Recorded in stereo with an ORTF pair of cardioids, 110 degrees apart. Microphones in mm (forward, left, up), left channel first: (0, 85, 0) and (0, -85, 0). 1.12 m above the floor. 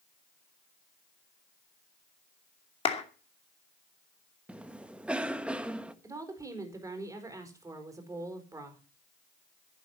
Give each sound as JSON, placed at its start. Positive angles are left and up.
{"t": 2.9, "sound": "a clap", "azimuth_deg": 35, "distance_m": 2.5}
{"t": 4.5, "sound": "a cough", "azimuth_deg": -5, "distance_m": 1.6}
{"t": 6.0, "sound": "a woman speaking", "azimuth_deg": -20, "distance_m": 4.5}